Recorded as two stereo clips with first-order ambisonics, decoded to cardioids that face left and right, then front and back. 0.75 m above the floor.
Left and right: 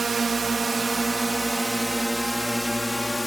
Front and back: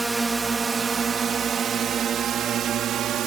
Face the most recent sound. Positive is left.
turn(degrees=170)